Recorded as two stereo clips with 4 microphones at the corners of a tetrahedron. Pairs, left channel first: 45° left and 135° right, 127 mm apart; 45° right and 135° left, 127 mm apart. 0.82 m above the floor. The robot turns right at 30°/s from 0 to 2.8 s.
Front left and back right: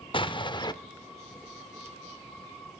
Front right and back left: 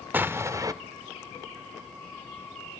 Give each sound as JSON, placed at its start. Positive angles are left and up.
{"t": 0.1, "sound": "an explosion", "azimuth_deg": 65, "distance_m": 0.6}